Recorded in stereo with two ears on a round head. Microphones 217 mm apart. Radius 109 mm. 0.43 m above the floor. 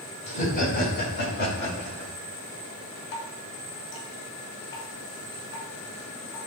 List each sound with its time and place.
0.3 s laughter: 30° left (ahead or behind), 3.5 m; by 2.1 s 50° left (ahead or behind), 5.5 m
3.1 s dripping: 50° left (ahead or behind), 2.5 m